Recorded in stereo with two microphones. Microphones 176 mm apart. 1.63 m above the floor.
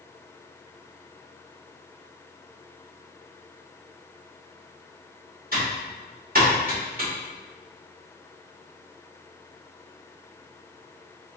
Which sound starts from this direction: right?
Typing on a keyboard, at 5.5 s.